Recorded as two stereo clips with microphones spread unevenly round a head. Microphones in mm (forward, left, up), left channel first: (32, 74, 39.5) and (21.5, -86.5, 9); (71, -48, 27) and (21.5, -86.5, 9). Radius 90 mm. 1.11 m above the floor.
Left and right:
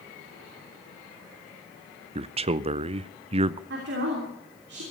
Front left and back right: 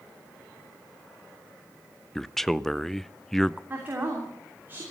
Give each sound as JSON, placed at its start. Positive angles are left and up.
{"t": 2.1, "sound": "a man speaking", "azimuth_deg": -60, "distance_m": 0.6}
{"t": 3.7, "sound": "a woman speaking", "azimuth_deg": -85, "distance_m": 3.0}